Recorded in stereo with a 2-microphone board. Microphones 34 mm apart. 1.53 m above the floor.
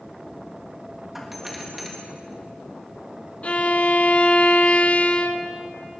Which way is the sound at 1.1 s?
5° right (ahead or behind).